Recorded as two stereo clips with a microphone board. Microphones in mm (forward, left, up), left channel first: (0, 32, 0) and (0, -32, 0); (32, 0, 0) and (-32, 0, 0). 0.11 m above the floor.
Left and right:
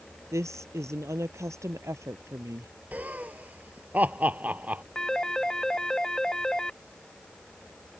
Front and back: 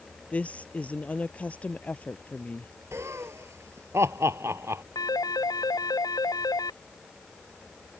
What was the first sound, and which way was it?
A woman speaking, 65° right.